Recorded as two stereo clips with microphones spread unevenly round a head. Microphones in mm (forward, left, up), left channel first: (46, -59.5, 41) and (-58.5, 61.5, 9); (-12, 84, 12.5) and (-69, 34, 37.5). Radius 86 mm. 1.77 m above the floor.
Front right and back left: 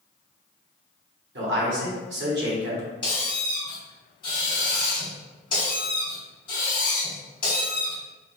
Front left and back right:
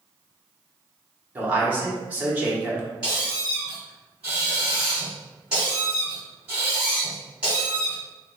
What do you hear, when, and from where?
1.4 s a man speaking: 155° left, 1.4 m
3.0 s a squeak: 80° right, 1.7 m